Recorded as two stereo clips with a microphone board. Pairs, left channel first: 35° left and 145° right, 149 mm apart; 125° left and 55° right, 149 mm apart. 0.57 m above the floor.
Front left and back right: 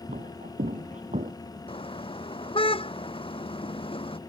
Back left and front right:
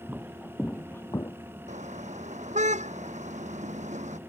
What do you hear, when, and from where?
0.1 s footsteps: 135° right; by 1.3 s 175° right
1.7 s a car horn: 20° right